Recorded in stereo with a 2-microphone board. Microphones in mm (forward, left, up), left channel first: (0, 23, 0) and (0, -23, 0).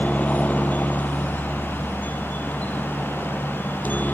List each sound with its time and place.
0.0 s a helicopter: 30° left (ahead or behind); by 4.1 s 35° left (ahead or behind)